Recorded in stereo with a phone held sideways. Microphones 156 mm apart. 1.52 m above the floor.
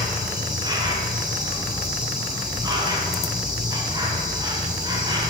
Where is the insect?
25° right (ahead or behind), 1.7 m.